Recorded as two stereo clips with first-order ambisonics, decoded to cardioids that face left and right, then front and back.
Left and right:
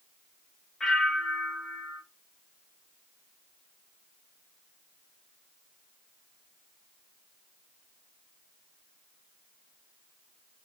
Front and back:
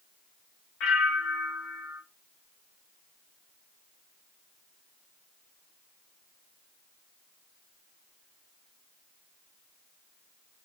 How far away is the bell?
About 0.8 m.